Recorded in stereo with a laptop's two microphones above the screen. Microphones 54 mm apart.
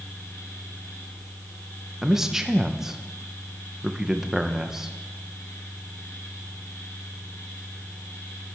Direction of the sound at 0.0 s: 65° left (ahead or behind).